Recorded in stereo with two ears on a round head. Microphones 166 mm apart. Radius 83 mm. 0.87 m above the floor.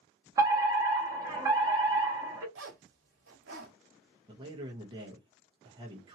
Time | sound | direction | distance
0.4 | a fire alarm | 15° right (ahead or behind) | 1.4 m
2.5 | a zipper | 70° right (ahead or behind) | 1.5 m
4.3 | a man speaking | 25° right (ahead or behind) | 1.0 m